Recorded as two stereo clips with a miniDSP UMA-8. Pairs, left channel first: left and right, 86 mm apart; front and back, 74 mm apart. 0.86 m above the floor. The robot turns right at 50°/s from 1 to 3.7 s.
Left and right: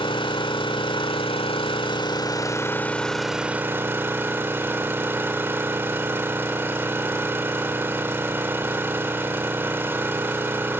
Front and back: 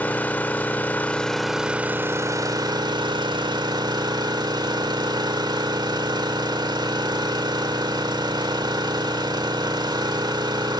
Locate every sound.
0.0 s an engine running: 70° left, 1.5 m; by 10.8 s 155° right, 1.5 m